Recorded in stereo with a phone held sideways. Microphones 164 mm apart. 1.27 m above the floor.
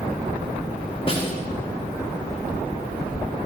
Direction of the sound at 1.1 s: 35° left (ahead or behind).